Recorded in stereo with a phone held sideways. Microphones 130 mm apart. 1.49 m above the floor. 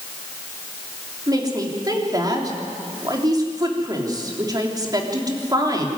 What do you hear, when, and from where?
1.3 s a woman speaking: 30° right (ahead or behind), 3.5 m